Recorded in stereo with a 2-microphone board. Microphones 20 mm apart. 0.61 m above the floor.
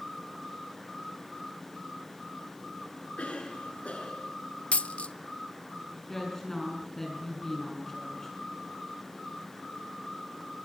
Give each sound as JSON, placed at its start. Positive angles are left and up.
{"t": 3.2, "sound": "a cough", "side_deg": 75, "distance_m": 7.5}
{"t": 4.7, "sound": "a dropped coin", "side_deg": 85, "distance_m": 0.6}
{"t": 6.1, "sound": "a woman speaking", "side_deg": 20, "distance_m": 6.5}